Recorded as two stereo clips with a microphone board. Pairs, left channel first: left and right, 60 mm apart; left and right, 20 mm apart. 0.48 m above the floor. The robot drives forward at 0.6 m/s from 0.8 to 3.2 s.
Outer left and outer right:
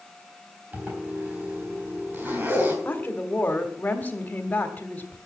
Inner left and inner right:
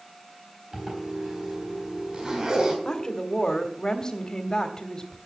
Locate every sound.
0.7 s a zipper: 30° right (ahead or behind), 4.5 m; by 2.8 s 40° right (ahead or behind), 3.5 m
2.9 s a woman speaking: 30° left (ahead or behind), 1.3 m